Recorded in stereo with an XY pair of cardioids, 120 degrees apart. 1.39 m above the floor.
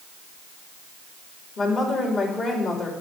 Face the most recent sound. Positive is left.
turn(degrees=40)